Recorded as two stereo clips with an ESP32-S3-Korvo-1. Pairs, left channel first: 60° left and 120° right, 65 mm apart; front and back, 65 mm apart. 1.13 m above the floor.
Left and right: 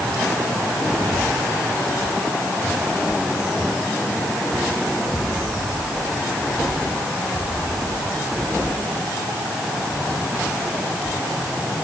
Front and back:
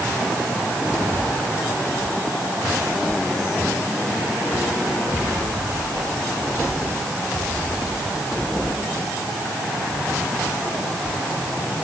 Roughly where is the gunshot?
I don't hear a gunshot.